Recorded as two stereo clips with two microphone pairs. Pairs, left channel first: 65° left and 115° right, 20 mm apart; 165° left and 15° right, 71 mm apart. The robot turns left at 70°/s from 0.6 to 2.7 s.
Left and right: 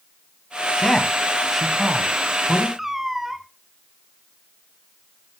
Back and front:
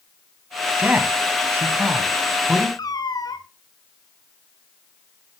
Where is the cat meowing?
175° left, 0.8 m.